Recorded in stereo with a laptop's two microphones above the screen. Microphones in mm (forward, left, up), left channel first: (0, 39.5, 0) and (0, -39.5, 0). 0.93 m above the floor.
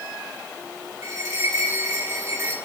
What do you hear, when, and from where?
1.0 s a bell: 35° right (ahead or behind), 2 m